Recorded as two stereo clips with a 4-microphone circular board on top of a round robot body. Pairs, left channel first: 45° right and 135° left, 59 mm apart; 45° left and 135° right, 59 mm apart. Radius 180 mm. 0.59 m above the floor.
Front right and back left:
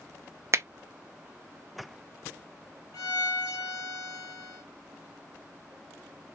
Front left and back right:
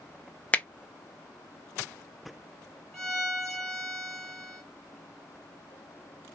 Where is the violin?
35° right, 1.2 m.